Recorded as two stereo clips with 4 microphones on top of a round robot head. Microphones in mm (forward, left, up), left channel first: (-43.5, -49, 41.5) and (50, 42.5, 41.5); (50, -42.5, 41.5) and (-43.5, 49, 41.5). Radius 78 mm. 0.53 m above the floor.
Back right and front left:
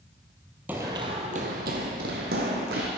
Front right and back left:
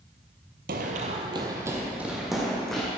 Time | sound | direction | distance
0.7 | running footsteps | 120° left | 0.9 m